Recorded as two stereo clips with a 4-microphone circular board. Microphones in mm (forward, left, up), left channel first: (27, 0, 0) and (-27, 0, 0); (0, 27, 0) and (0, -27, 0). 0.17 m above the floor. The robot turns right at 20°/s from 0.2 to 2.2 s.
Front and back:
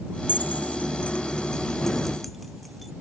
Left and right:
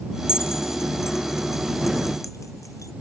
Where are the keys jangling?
50° left; by 2.9 s 90° left.